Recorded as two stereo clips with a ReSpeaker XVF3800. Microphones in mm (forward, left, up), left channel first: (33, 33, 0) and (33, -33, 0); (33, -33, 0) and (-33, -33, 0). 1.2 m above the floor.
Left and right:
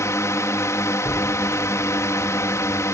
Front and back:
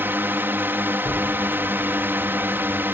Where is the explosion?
25° left.